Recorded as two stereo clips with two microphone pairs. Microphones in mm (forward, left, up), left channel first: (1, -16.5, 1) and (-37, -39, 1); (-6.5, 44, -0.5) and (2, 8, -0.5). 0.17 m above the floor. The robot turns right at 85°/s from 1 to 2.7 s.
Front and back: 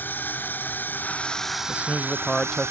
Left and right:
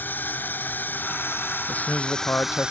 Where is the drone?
70° left; by 2.7 s 145° right.